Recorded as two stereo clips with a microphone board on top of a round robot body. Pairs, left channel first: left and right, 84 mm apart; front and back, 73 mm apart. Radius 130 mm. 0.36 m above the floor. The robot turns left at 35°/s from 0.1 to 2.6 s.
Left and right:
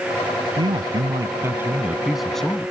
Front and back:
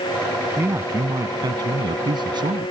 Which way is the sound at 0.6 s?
120° right.